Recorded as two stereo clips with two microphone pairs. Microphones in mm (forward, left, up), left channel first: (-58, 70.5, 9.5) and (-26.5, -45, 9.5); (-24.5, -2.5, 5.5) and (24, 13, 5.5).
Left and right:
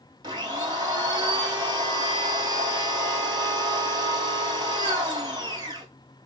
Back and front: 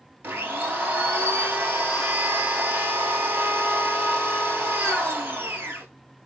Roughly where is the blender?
Ahead right.